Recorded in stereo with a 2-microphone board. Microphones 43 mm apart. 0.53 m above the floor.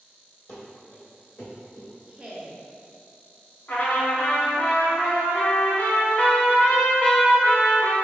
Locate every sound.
0.5 s running footsteps: 40° left (ahead or behind), 1.2 m; by 1.9 s 55° left (ahead or behind), 2.0 m
2.1 s a woman speaking: 25° right (ahead or behind), 0.7 m
3.7 s a trumpet: 55° left (ahead or behind), 1.0 m